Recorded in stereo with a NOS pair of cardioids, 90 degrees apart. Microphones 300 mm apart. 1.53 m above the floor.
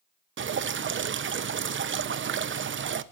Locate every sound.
0.4 s dripping: 40° right, 1.0 m